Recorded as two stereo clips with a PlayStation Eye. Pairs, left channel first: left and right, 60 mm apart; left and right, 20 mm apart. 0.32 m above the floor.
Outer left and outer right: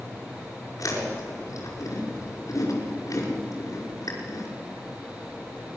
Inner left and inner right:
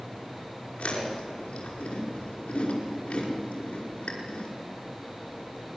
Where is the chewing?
75° left (ahead or behind), 5.5 m.